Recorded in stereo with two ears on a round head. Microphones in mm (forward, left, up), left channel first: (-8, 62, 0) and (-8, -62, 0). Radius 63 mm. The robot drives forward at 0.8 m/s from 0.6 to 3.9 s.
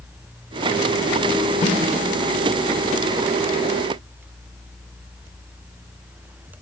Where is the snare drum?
55° left (ahead or behind), 3 m.